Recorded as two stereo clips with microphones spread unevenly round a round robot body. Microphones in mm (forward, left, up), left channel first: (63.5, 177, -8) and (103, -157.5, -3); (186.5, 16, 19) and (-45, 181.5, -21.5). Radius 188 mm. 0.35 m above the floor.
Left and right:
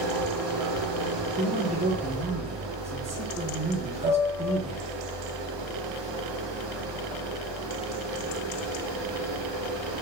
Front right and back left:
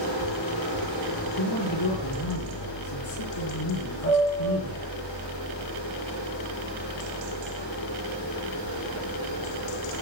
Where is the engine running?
55° right, 6.5 m.